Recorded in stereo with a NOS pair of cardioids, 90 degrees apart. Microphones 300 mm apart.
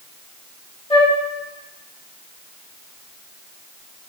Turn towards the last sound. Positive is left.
turn(degrees=20)